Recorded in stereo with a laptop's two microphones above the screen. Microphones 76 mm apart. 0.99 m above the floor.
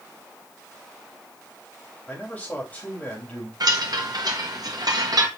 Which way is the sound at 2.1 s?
20° left (ahead or behind).